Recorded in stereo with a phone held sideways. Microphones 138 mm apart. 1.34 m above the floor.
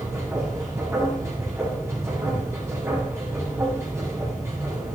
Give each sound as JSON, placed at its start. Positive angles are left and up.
{"t": 0.0, "sound": "a machine running", "side_deg": -20, "distance_m": 8.0}